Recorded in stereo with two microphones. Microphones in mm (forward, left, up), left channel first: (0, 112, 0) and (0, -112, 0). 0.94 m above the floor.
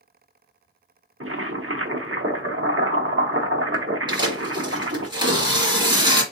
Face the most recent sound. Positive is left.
turn(degrees=-20)  # may be behind; listen again after turning